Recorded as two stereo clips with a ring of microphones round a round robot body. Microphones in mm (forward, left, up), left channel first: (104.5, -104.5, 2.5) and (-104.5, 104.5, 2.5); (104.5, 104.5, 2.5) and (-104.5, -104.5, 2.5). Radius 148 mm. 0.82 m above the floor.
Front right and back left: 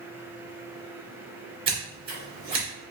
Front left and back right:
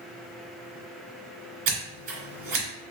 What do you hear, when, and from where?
1.7 s scissors: 155° right, 1.9 m